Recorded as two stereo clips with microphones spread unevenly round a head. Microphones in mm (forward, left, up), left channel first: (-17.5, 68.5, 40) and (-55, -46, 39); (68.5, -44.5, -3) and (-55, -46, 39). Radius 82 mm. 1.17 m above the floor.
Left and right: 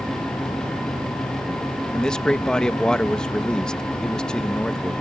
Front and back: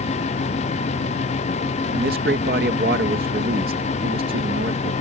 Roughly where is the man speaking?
Behind left.